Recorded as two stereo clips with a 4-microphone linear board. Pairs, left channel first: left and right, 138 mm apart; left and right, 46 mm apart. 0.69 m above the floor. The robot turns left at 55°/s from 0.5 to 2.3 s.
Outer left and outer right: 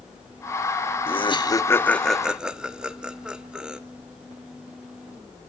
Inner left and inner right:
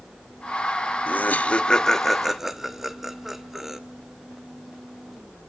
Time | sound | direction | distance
1.1 | laughter | 40° left (ahead or behind) | 1.3 m